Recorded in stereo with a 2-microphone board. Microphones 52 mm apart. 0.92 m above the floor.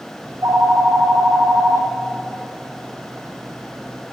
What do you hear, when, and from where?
0.2 s a phone ringing: 65° right (ahead or behind), 0.5 m